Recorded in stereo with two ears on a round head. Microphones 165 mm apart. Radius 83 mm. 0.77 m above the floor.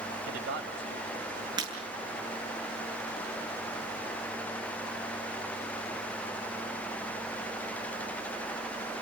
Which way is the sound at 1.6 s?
25° right (ahead or behind).